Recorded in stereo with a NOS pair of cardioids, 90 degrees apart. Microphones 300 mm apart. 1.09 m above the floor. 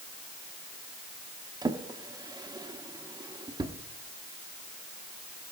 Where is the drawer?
15° right, 0.9 m.